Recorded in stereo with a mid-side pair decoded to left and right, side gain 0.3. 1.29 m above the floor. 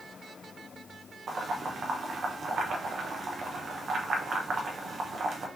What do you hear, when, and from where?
1.3 s boiling: 65° right, 1.1 m